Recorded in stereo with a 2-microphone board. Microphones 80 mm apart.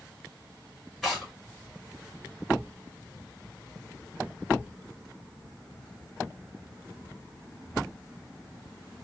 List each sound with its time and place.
1.0 s tearing paper: 5° right (ahead or behind), 1.8 m